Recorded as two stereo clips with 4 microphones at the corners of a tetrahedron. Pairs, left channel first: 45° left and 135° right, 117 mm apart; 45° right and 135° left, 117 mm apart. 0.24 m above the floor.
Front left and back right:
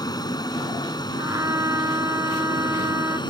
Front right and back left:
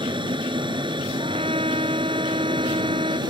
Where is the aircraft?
95° left; by 3.3 s 90° left.